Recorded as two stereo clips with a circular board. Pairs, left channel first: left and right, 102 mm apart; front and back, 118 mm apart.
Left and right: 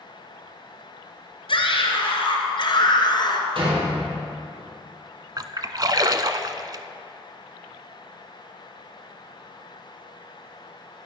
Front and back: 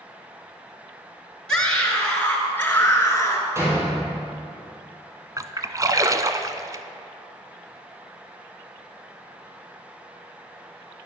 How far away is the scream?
About 3.5 m.